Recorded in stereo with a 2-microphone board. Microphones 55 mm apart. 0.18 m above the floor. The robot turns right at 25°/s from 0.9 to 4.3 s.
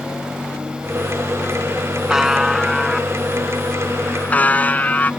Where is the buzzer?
10° right; by 5.1 s 45° left.